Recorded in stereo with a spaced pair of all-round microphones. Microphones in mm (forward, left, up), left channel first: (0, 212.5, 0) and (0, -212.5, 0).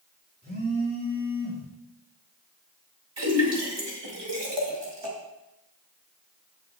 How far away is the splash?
About 2 m.